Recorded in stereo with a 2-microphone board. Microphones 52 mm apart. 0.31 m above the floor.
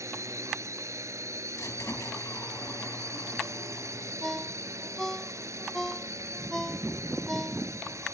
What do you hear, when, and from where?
0.0 s a drone: 70° right (ahead or behind)
1.6 s a squeak: 75° left (ahead or behind)
4.2 s a ringtone: 10° left (ahead or behind)